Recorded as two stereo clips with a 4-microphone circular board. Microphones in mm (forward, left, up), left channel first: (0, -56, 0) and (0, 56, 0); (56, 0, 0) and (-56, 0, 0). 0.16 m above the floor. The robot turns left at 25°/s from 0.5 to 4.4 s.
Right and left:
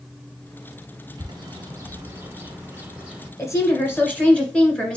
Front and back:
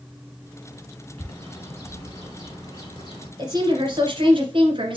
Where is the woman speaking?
145° right, 1.9 m; by 5.0 s 170° right, 1.9 m.